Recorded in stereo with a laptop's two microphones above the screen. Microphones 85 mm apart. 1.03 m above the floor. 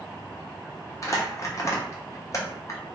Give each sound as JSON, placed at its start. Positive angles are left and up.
{"t": 1.0, "sound": "crumpling", "side_deg": 35, "distance_m": 0.5}